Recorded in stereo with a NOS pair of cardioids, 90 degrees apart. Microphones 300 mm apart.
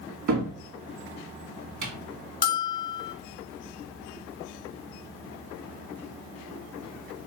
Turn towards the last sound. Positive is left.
turn(degrees=35)